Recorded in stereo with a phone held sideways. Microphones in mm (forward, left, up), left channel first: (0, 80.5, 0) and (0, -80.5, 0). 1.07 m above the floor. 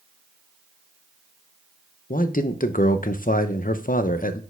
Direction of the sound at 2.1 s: 60° left (ahead or behind).